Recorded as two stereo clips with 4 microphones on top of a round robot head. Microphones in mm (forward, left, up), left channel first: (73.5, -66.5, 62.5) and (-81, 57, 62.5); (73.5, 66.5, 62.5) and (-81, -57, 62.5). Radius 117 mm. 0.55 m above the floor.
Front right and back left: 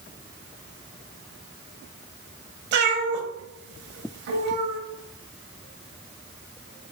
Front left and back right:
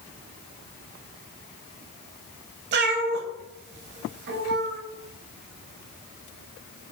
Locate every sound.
2.7 s a cat meowing: straight behind, 0.6 m